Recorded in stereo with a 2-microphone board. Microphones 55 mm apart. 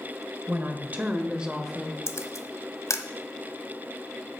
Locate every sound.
0.5 s a woman speaking: 40° right (ahead or behind), 1.7 m; by 2.0 s centre (ahead or behind), 1.3 m
2.1 s a camera shutter: 65° left (ahead or behind), 1.1 m